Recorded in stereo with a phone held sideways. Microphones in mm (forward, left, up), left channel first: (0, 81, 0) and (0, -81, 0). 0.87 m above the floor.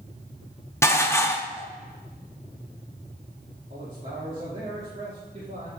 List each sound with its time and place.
0.8 s dishes clattering: 15° left (ahead or behind), 0.8 m
3.7 s a man speaking: 50° right (ahead or behind), 1.9 m